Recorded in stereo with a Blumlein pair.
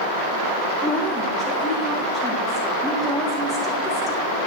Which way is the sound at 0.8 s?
15° left.